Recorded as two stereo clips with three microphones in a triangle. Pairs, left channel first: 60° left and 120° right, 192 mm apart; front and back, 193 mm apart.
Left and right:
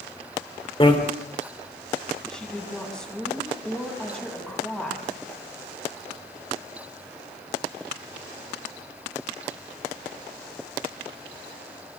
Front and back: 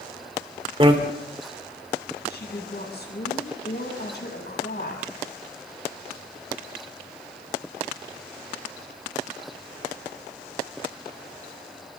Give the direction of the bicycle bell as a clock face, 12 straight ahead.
8 o'clock.